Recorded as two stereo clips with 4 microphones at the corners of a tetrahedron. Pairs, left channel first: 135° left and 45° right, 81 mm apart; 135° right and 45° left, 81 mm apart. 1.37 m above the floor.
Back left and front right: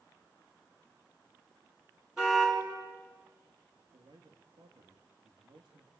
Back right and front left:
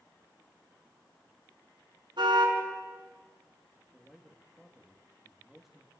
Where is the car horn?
35° left, 7.5 m.